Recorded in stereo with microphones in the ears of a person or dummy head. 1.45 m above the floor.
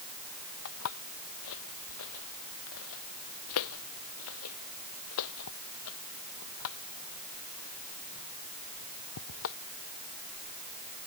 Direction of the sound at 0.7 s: 70° left (ahead or behind).